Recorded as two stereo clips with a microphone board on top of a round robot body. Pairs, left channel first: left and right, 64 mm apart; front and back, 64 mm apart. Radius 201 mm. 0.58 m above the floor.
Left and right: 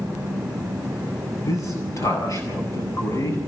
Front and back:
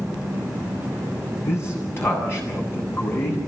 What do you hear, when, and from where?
1.4 s a man speaking: 55° left, 8 m